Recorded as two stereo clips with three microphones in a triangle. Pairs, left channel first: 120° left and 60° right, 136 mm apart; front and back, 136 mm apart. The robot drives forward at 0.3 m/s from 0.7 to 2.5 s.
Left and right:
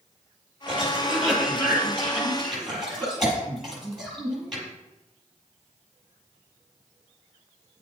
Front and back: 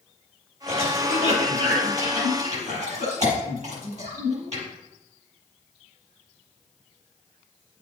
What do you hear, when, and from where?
0.7 s a cough: 145° right, 5 m; by 4.6 s 150° right, 5.5 m